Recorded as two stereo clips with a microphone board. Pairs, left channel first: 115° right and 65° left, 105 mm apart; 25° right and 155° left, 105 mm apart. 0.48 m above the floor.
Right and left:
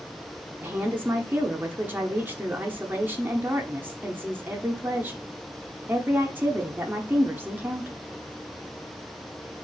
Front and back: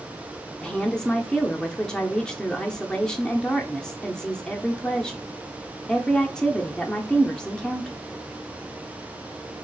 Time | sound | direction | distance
0.6 | a woman speaking | 50° left | 0.7 m